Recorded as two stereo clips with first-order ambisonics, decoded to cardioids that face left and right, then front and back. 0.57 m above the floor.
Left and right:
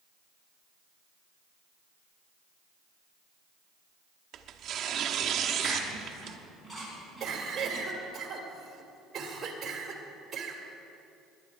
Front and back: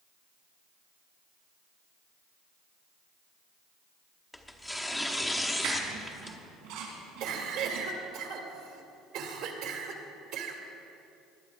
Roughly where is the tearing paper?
Right.